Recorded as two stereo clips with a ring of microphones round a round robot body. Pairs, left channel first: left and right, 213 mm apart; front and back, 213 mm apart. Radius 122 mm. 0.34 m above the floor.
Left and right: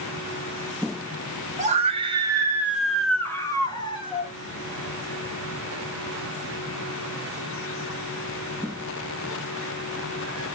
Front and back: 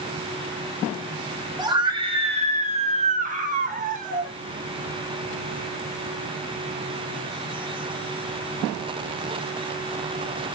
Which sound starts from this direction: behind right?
A scream, at 1.6 s.